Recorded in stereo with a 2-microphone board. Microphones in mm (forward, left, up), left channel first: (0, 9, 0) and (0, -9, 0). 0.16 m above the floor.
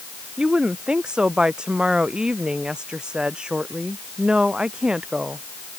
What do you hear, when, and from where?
0.4 s a woman speaking: 60° right (ahead or behind)